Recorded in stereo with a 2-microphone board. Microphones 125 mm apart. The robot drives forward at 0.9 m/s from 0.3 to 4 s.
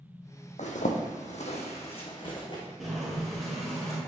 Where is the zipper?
75° left (ahead or behind), 1.2 m; by 2.6 s 35° left (ahead or behind), 1.9 m.